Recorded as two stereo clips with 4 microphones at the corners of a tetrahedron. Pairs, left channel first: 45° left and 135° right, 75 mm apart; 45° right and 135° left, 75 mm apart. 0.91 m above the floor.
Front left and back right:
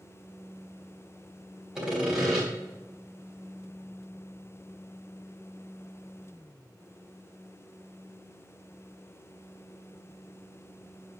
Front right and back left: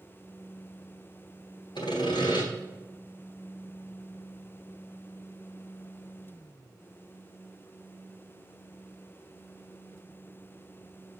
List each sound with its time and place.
1.8 s sawing: 50° right, 3.5 m